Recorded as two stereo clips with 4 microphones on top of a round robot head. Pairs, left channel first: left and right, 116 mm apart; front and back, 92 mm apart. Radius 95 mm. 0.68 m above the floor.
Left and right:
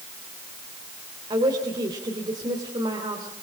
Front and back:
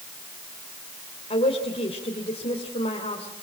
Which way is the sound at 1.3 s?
35° right.